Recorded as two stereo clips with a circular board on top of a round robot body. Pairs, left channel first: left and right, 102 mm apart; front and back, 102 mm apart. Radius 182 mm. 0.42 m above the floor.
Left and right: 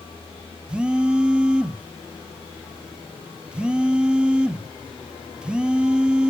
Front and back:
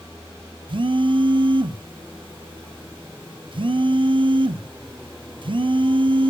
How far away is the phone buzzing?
About 1.2 m.